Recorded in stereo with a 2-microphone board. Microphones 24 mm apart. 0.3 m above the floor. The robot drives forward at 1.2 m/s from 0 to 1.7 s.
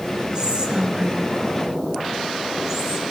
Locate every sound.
0.3 s whispering: 35° right (ahead or behind), 1.8 m; by 3.1 s 25° right (ahead or behind), 2.5 m